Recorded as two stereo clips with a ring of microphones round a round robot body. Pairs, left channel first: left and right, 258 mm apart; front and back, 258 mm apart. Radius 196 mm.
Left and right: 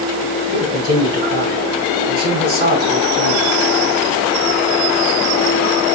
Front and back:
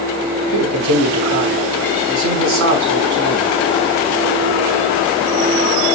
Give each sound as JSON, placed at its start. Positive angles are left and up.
{"t": 0.5, "sound": "a man speaking", "azimuth_deg": -165, "distance_m": 5.0}